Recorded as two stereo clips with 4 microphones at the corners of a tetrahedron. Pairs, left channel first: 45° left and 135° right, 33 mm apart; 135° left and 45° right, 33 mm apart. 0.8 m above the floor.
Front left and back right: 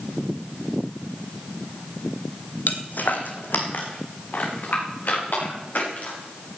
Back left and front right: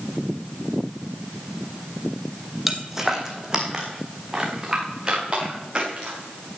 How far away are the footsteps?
About 1.5 m.